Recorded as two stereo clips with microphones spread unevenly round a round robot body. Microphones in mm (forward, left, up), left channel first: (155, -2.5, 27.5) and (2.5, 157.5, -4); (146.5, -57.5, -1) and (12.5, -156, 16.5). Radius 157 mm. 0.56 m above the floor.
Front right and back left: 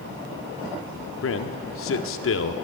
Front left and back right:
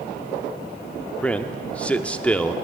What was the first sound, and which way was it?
A man speaking, 40° right.